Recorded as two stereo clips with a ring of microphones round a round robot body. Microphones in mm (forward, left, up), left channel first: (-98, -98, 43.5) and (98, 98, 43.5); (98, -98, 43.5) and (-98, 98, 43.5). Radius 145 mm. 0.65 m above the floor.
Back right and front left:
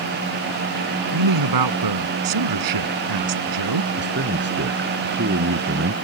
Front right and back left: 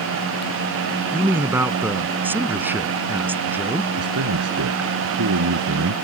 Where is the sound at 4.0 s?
95° left.